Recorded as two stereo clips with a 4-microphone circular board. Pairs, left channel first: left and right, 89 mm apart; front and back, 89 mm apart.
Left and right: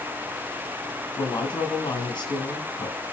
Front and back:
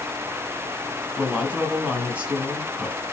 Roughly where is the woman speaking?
Left.